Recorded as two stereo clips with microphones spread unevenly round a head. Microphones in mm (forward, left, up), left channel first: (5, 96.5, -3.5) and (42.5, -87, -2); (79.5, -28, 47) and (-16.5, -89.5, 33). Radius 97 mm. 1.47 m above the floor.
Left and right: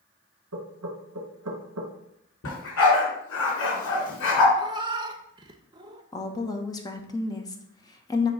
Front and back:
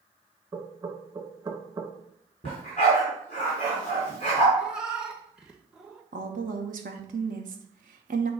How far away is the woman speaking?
About 0.9 m.